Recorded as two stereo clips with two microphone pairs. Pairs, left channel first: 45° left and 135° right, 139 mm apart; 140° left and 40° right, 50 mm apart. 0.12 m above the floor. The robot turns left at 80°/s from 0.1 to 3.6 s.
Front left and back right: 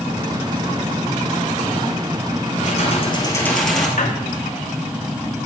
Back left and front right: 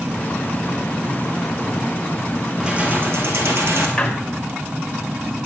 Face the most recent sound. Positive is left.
turn(degrees=70)